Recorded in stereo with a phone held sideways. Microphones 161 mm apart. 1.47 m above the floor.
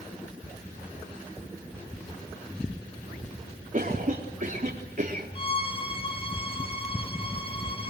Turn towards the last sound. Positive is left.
turn(degrees=30)  # may be behind; listen again after turning